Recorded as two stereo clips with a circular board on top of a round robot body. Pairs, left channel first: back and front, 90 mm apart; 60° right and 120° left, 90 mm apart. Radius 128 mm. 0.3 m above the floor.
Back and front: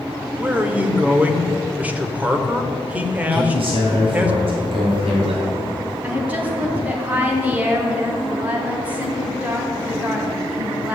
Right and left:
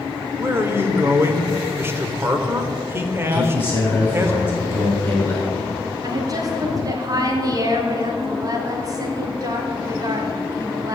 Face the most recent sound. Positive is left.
turn(degrees=75)